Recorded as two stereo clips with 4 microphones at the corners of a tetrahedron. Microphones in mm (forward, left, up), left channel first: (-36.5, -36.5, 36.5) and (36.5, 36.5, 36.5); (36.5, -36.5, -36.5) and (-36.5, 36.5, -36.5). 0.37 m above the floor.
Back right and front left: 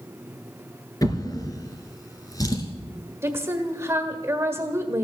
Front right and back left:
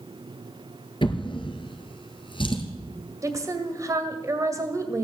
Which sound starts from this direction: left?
A woman speaking, at 3.2 s.